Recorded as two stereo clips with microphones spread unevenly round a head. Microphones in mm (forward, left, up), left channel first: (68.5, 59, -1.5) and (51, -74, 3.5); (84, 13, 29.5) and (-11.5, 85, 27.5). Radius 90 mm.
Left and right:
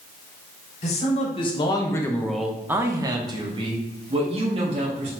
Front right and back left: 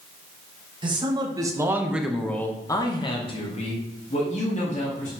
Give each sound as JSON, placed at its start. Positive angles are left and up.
{"t": 0.8, "sound": "a man speaking", "azimuth_deg": 105, "distance_m": 1.5}